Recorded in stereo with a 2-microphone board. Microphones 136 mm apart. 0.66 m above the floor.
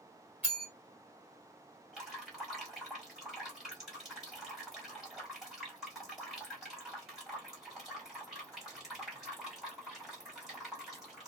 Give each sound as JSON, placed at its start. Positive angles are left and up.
{"t": 0.4, "sound": "a bell", "side_deg": -10, "distance_m": 1.6}
{"t": 1.9, "sound": "dripping", "side_deg": -5, "distance_m": 1.7}